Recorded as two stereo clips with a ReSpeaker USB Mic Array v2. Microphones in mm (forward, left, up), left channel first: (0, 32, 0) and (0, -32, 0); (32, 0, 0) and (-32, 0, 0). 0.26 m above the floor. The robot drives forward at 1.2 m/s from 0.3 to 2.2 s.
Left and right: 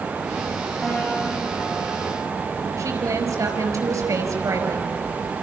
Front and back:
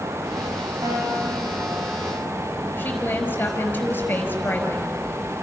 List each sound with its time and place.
0.8 s a guitar: 175° right, 10 m; by 2.3 s straight behind, 11.5 m
2.8 s a woman speaking: 60° right, 5 m